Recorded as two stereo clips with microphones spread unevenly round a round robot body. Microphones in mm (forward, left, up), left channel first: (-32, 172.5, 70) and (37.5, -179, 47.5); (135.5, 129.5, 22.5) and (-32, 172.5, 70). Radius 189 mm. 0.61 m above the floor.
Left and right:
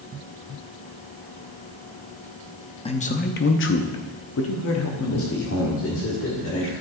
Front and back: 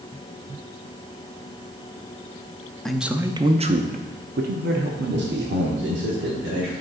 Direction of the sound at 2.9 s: 35° left.